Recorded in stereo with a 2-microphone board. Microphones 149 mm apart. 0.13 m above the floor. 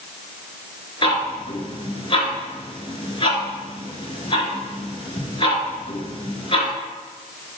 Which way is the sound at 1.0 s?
35° left (ahead or behind).